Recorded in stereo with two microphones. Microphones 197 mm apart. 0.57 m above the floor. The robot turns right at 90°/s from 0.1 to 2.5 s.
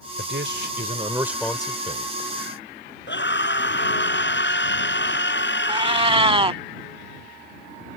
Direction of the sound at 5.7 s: 30° right (ahead or behind).